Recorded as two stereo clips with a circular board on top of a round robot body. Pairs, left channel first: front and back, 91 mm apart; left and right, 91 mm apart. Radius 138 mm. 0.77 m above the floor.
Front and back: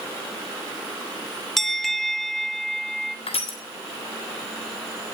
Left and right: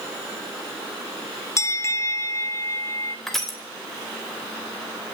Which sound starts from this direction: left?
A bell, at 1.6 s.